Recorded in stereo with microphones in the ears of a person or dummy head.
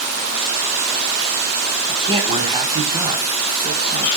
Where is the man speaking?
30° right (ahead or behind), 4.5 m.